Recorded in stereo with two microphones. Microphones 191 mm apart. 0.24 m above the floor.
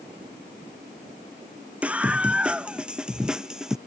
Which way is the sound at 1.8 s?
5° right (ahead or behind).